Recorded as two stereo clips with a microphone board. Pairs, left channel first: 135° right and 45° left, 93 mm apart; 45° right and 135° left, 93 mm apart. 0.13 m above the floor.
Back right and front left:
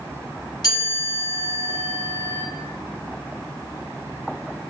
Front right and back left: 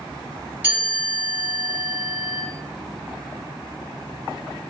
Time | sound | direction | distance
0.6 | a chime | 160° right | 1.9 m